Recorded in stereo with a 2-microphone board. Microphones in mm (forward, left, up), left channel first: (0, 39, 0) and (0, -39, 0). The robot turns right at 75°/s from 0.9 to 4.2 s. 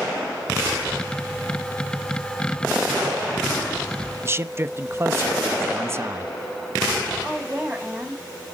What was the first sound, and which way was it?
A man speaking, 30° right (ahead or behind).